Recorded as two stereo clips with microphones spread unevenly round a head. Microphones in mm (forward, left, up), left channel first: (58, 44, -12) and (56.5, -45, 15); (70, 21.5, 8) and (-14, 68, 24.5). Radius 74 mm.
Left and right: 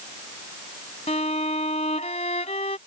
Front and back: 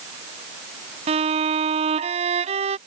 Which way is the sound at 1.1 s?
140° left.